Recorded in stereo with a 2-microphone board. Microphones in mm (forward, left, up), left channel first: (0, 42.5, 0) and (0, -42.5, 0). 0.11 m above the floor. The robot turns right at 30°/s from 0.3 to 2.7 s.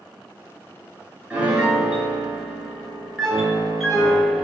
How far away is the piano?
About 0.9 m.